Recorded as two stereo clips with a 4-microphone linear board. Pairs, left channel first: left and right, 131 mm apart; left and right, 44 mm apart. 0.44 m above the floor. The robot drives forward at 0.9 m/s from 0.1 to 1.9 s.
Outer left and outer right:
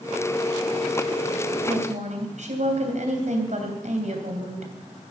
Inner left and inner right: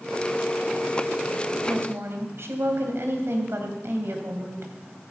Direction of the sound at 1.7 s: 65° right (ahead or behind).